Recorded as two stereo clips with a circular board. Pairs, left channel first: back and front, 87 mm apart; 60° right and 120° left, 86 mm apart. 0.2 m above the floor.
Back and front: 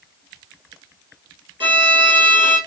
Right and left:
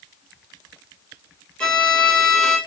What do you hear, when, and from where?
1.6 s a violin: 20° left, 1.6 m